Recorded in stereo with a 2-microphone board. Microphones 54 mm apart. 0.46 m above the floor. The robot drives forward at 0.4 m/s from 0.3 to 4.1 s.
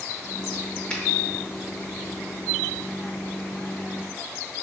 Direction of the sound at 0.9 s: 20° left (ahead or behind).